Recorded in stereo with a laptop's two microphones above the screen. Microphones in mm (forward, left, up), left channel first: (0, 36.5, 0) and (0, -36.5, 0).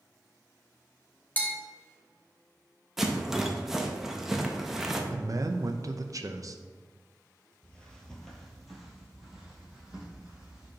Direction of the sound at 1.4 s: 25° left (ahead or behind).